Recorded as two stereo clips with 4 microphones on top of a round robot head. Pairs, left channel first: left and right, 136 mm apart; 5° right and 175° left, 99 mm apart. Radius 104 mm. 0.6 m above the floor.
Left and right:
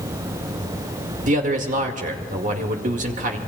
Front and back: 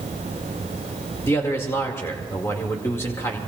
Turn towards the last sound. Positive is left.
turn(degrees=-70)